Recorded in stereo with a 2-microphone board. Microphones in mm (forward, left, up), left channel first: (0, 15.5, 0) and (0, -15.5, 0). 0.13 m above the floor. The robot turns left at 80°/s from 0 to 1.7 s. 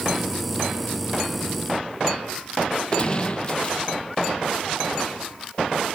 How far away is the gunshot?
About 0.8 m.